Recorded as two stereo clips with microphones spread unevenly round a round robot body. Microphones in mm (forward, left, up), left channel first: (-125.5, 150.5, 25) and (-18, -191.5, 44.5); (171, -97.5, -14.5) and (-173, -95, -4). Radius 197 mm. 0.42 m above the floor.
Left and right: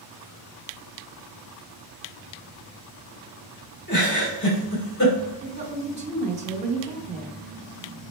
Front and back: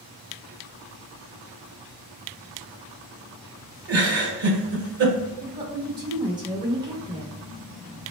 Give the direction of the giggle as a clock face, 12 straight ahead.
7 o'clock.